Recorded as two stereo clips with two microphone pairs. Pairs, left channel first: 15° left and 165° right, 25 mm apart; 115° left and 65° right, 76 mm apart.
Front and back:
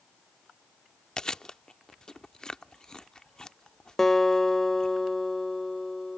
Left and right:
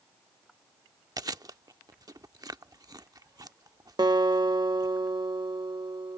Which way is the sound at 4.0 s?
55° right.